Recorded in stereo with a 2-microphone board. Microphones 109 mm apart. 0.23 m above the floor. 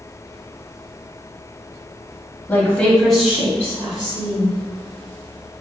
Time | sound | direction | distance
2.5 | a woman speaking | 20° left (ahead or behind) | 1.1 m